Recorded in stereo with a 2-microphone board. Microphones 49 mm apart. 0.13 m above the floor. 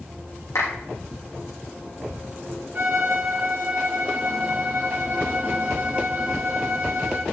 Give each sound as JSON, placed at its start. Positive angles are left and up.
{"t": 0.6, "sound": "a clap", "side_deg": 80, "distance_m": 7.0}
{"t": 2.8, "sound": "a violin", "side_deg": -40, "distance_m": 3.5}